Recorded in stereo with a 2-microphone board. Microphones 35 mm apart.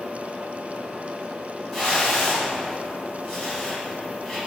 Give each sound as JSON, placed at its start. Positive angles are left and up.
{"t": 1.7, "sound": "a whoosh", "side_deg": 10, "distance_m": 1.9}